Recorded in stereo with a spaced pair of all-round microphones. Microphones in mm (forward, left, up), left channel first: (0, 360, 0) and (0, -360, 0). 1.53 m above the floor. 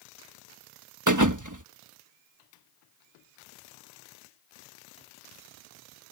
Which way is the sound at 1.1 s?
25° right (ahead or behind).